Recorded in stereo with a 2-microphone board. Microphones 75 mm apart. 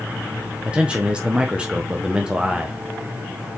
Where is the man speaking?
15° right (ahead or behind), 0.6 m.